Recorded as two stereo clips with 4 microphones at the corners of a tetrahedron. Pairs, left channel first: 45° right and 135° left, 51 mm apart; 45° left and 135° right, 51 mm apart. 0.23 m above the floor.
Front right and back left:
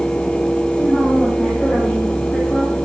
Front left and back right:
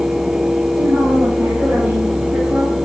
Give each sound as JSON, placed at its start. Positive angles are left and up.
{"t": 0.7, "sound": "a woman speaking", "azimuth_deg": -125, "distance_m": 8.0}